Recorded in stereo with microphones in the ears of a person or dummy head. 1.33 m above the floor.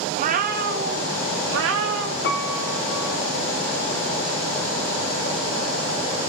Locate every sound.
0.1 s a cat meowing: 35° right (ahead or behind), 0.9 m; by 2.1 s 75° right (ahead or behind), 1.6 m
2.2 s a piano: 50° left (ahead or behind), 1.3 m